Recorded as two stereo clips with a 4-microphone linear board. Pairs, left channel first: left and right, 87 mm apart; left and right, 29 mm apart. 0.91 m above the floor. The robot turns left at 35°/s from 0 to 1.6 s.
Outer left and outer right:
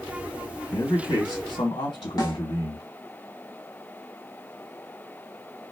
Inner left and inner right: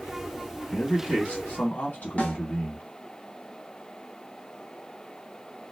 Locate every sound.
0.7 s a man speaking: 135° left, 1.5 m; by 2.9 s 105° left, 1.5 m
2.2 s a snare drum: 50° left (ahead or behind), 1.1 m